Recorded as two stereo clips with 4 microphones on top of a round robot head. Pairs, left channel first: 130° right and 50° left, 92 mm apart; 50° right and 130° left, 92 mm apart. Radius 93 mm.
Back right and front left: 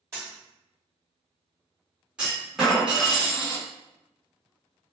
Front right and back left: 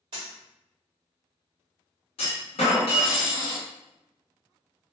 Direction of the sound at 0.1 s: 105° left.